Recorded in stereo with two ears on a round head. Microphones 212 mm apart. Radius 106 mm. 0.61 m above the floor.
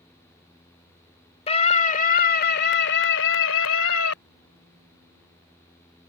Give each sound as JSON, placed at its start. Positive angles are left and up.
{"t": 1.5, "sound": "a scream", "side_deg": 25}